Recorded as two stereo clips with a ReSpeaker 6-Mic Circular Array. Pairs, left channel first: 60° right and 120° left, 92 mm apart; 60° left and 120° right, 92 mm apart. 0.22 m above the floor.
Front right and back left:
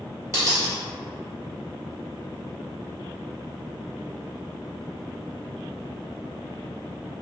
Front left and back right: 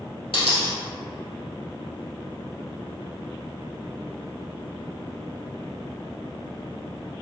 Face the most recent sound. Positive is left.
turn(degrees=65)